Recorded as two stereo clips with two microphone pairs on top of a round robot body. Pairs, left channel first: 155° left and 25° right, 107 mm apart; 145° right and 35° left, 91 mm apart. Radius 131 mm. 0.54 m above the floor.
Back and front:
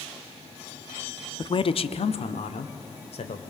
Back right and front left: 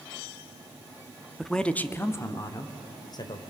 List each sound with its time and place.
1.4 s a man speaking: 125° left, 1.0 m; by 3.4 s 175° left, 2.5 m